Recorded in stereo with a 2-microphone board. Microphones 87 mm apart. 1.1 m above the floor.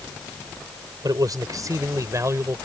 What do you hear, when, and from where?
1.0 s a man speaking: 50° right (ahead or behind); by 2.6 s 35° right (ahead or behind)